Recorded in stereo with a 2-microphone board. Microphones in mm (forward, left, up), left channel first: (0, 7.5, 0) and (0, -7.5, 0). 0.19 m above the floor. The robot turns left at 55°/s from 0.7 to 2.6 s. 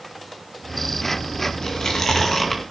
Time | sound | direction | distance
1.6 | chewing | 45° left (ahead or behind) | 2 m